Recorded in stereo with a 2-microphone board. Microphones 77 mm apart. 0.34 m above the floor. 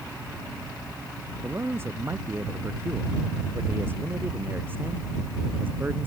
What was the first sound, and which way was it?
A man speaking, 30° right (ahead or behind).